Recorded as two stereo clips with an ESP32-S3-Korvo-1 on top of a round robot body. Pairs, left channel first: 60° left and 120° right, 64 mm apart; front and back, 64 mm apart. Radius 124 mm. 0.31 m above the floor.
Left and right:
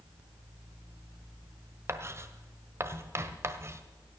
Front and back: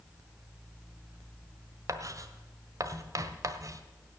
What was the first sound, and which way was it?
Writing, 160° right.